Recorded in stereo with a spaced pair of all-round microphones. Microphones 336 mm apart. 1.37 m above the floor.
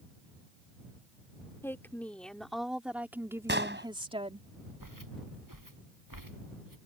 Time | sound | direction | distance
1.6 | a woman speaking | 5° left (ahead or behind) | ?
3.5 | an explosion | 30° right (ahead or behind) | ?
4.8 | footsteps | 65° right (ahead or behind) | ?